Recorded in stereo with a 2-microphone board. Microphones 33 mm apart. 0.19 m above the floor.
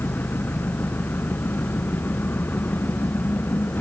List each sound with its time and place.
0.0 s an engine running: 70° left (ahead or behind)